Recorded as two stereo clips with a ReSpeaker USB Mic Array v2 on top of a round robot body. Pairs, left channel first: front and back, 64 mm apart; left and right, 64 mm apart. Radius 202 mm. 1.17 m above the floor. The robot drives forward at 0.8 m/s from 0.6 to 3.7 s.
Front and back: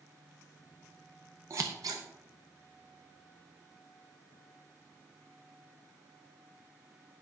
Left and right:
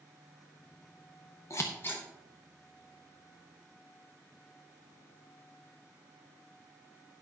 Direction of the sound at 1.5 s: 135° left.